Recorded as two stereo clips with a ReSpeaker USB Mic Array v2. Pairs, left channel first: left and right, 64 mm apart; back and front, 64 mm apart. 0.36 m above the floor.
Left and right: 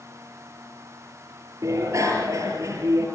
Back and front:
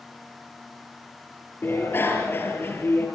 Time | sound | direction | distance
1.6 | a bicycle bell | 125° right | 5.5 m